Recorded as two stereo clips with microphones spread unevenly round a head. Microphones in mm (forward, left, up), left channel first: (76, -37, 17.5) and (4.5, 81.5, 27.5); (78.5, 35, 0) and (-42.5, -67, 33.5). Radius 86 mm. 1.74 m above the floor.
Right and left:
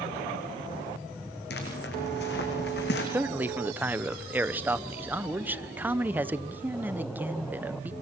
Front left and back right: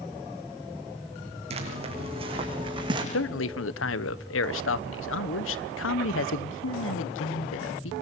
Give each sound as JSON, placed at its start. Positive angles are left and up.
{"t": 1.5, "sound": "footsteps", "azimuth_deg": -95, "distance_m": 6.5}
{"t": 3.1, "sound": "a man speaking", "azimuth_deg": 45, "distance_m": 1.0}